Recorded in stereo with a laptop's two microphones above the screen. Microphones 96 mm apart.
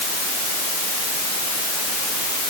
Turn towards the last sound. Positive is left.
No sound to turn to.